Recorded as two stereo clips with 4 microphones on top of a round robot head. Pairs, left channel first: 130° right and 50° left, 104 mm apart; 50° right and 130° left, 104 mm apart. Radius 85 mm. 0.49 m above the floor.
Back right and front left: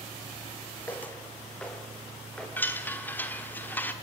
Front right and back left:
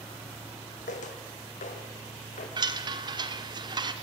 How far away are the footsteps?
About 1.5 m.